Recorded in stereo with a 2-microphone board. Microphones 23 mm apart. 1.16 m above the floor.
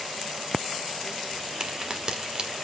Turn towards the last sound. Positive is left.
turn(degrees=-30)  # may be behind; listen again after turning